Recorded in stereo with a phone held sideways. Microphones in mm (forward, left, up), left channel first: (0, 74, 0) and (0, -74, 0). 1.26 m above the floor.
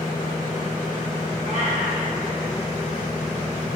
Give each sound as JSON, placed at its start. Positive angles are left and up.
{"t": 1.4, "sound": "a cat meowing", "side_deg": -55, "distance_m": 2.5}